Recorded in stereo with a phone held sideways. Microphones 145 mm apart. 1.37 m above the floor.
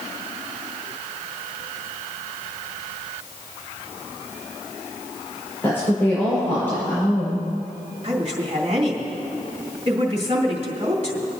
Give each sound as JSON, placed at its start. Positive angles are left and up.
{"t": 5.6, "sound": "a woman speaking", "side_deg": 15, "distance_m": 5.0}
{"t": 8.0, "sound": "a woman speaking", "side_deg": -50, "distance_m": 3.0}